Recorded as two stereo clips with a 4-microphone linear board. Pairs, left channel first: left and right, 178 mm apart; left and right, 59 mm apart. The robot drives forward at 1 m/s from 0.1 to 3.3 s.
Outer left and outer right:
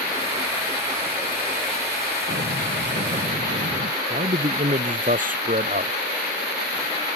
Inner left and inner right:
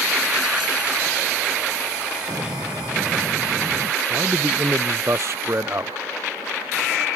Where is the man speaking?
50° right (ahead or behind).